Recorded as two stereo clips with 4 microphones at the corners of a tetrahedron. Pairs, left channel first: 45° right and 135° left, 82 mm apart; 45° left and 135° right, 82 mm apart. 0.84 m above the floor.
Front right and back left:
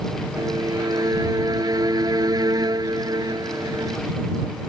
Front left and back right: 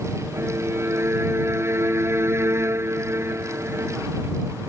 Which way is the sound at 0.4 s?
170° left.